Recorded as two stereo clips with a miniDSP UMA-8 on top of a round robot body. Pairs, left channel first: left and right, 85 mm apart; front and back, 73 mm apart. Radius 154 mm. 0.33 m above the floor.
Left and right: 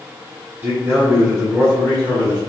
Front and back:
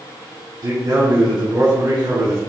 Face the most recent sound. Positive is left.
turn(degrees=-145)